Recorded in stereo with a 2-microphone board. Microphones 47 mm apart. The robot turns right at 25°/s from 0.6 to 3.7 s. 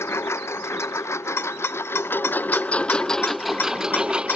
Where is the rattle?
60° left (ahead or behind); by 4.4 s 45° left (ahead or behind).